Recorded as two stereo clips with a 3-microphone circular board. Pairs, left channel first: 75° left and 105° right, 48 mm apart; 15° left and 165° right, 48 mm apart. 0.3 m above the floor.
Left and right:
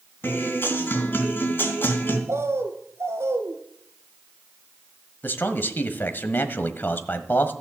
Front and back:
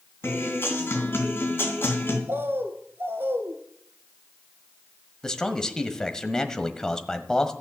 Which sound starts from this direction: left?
A man speaking, at 5.2 s.